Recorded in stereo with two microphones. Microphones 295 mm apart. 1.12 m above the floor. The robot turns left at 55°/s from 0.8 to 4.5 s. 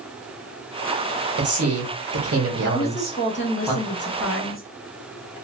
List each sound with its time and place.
1.4 s a man speaking: 65° right, 1.1 m; by 3.7 s 165° left, 1.1 m
2.7 s a woman speaking: 160° left, 0.7 m; by 4.6 s 65° left, 0.7 m